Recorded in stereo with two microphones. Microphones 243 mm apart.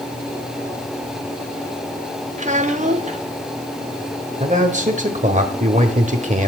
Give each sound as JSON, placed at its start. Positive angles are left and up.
{"t": 2.4, "sound": "a child speaking", "side_deg": -30, "distance_m": 0.9}
{"t": 4.4, "sound": "a man speaking", "side_deg": -30, "distance_m": 1.3}